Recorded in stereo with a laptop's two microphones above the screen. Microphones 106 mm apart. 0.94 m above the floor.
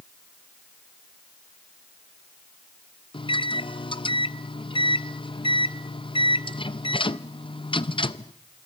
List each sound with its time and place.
3.1 s a microwave: 55° left (ahead or behind), 0.5 m